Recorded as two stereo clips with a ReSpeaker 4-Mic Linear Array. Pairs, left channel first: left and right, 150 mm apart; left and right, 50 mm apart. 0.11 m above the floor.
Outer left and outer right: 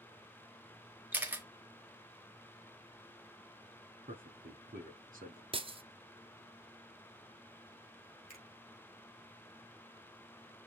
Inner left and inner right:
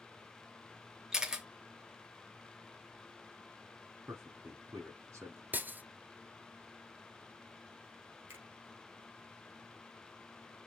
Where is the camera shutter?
10° right (ahead or behind), 1.1 m.